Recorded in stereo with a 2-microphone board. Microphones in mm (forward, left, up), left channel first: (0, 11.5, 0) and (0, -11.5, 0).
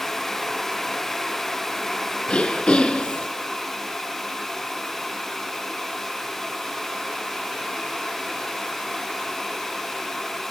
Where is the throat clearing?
55° left (ahead or behind), 2 m.